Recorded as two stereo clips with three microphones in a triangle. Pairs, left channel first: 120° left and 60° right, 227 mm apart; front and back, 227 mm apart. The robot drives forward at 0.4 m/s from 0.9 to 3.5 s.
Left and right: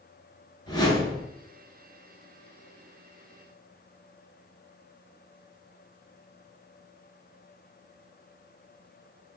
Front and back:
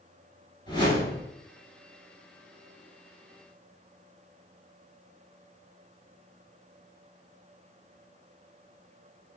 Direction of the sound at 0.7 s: 60° left.